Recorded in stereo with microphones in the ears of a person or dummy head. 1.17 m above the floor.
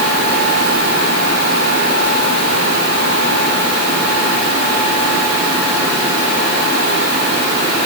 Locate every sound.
Only background noise.